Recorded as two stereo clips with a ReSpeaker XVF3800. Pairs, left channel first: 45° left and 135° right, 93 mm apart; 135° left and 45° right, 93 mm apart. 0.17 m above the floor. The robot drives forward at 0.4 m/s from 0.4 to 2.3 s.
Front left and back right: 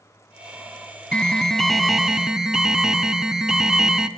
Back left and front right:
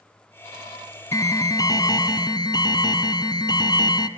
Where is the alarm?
120° left, 1.2 m; by 4.1 s 145° left, 1.4 m.